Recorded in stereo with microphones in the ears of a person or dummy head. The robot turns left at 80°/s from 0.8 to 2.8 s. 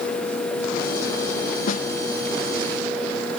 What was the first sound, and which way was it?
A snare drum, 50° left (ahead or behind).